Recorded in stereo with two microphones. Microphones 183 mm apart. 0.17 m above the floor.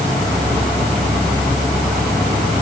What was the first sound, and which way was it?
Only background noise.